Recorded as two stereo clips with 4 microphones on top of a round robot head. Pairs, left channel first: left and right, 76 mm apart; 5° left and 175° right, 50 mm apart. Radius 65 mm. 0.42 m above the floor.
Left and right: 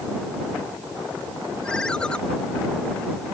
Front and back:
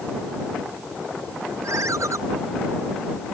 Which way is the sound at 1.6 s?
170° left.